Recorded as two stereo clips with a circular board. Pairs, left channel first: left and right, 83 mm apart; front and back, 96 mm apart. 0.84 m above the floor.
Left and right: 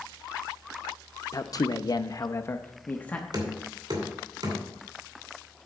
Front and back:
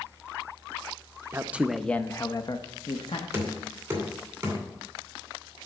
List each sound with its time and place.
1.3 s a man speaking: 120° left, 0.6 m; by 3.2 s 15° left, 1.0 m
3.3 s knocking: 110° right, 2.5 m